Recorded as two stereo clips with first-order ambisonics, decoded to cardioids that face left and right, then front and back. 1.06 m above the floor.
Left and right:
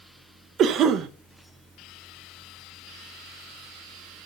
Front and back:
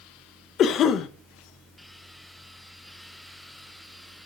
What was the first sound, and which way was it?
A cough, 50° right.